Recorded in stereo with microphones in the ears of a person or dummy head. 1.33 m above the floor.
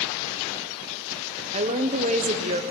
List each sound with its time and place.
1.5 s a woman speaking: 30° right (ahead or behind), 0.8 m